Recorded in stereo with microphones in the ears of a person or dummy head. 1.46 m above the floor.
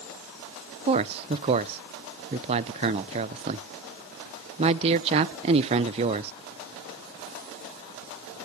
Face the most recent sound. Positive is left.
turn(degrees=-40)  # may be behind; listen again after turning